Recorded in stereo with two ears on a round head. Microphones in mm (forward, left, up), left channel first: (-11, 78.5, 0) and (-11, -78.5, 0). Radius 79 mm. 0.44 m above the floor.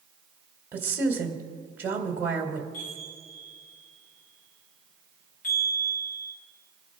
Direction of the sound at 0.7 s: 10° right (ahead or behind).